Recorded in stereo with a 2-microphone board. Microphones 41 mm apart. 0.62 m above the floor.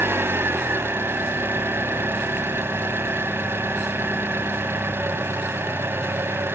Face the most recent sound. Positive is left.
turn(degrees=-65)  # may be behind; listen again after turning